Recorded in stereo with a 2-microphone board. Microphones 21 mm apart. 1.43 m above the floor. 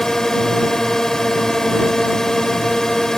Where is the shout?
I don't hear a shout.